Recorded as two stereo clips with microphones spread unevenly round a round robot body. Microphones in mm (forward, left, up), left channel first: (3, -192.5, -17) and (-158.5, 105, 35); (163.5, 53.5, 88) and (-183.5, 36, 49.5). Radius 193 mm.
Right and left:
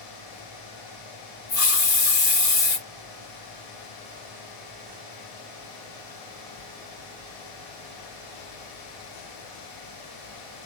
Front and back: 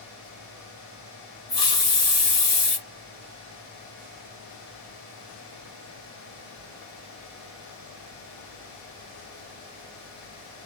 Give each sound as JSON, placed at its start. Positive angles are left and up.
{"t": 1.5, "sound": "a hiss", "azimuth_deg": -75, "distance_m": 2.0}